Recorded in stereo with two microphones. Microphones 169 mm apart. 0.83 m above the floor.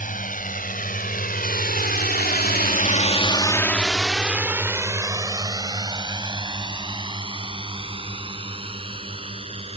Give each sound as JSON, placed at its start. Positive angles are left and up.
{"t": 0.0, "sound": "a drone", "side_deg": 55}